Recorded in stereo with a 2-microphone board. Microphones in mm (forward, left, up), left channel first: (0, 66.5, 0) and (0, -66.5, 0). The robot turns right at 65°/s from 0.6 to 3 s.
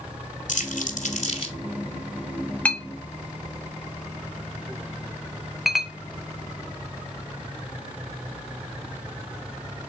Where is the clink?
10° left (ahead or behind), 0.5 m; by 5.9 s centre (ahead or behind), 0.5 m.